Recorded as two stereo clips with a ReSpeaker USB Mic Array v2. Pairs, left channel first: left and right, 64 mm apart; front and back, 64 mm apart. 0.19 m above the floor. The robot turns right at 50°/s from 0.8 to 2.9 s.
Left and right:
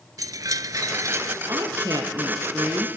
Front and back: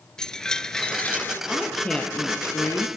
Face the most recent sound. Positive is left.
turn(degrees=-30)